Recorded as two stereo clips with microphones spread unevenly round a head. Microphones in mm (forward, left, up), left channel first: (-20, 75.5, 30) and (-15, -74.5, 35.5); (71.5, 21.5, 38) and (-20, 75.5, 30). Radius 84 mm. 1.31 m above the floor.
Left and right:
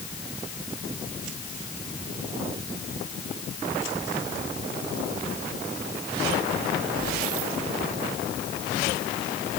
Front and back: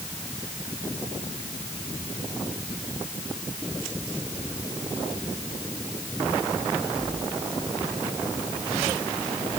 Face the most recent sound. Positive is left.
No sound to turn to.